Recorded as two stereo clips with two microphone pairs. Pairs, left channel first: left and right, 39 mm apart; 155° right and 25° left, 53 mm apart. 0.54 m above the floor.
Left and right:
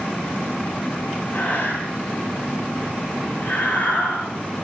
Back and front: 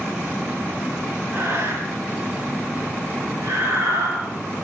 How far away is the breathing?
About 8 m.